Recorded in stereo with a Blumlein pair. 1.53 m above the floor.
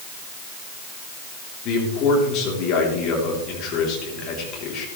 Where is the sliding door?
I don't hear a sliding door.